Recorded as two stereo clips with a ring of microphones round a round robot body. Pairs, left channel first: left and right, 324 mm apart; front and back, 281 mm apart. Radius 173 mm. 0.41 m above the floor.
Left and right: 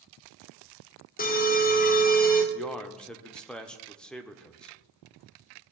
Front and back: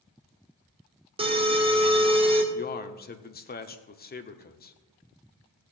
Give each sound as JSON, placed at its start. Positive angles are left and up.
{"t": 1.2, "sound": "an alarm", "azimuth_deg": 125, "distance_m": 1.6}
{"t": 2.5, "sound": "a man speaking", "azimuth_deg": 5, "distance_m": 1.0}